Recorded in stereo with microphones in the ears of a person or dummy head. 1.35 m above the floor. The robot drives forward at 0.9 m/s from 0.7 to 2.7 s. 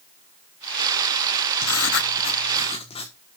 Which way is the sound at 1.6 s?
70° left (ahead or behind).